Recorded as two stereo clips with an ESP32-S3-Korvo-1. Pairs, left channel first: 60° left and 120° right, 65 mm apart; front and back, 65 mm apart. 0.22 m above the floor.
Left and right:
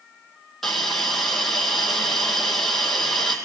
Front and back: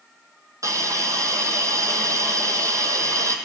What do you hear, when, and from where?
0.6 s a hiss: 145° left, 1.6 m